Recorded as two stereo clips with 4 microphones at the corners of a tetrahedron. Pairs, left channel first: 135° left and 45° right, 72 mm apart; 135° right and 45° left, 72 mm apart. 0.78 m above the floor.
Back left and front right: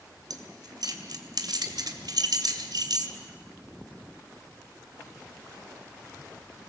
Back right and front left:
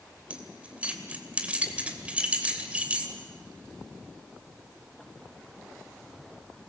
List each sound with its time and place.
0.3 s keys jangling: 25° right, 2.5 m